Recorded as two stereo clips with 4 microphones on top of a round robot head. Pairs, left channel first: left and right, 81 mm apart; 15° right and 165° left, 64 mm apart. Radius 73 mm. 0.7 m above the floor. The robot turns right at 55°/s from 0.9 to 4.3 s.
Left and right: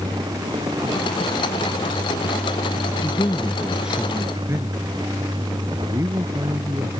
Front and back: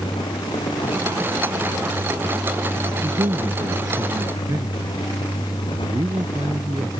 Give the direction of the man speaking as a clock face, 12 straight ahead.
7 o'clock.